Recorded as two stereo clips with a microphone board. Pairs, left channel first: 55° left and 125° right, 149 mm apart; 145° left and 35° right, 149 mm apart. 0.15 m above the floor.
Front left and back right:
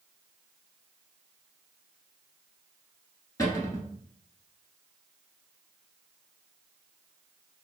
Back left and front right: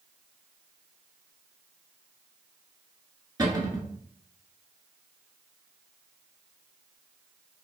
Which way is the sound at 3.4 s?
10° left.